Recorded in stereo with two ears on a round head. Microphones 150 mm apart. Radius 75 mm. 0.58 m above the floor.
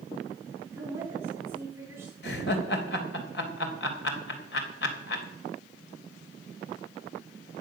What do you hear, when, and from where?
0.7 s a woman speaking: 15° right (ahead or behind), 6 m
2.2 s laughter: 70° left (ahead or behind), 3 m